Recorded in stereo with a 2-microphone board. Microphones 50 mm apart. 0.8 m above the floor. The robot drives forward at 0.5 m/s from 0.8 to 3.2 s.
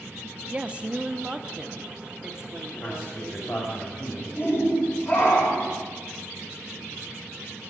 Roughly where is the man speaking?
Left.